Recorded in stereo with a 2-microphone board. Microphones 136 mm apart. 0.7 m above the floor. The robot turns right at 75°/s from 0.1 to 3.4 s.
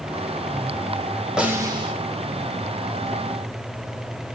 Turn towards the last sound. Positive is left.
turn(degrees=-25)